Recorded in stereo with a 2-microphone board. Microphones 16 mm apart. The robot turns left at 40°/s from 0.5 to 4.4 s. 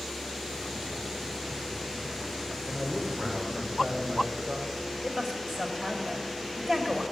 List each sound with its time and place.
2.6 s a man speaking: 35° right, 3.5 m; by 4.9 s 105° right, 3.5 m
5.0 s a woman speaking: 40° right (ahead or behind), 2.5 m